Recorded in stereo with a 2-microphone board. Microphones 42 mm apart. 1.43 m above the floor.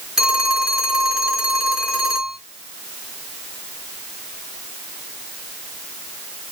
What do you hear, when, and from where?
0.2 s a phone ringing: 15° right (ahead or behind), 2.5 m